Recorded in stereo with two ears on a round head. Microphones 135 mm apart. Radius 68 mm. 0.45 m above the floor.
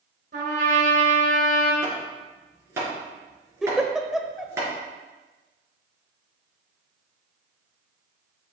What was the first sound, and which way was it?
A trumpet, 55° right (ahead or behind).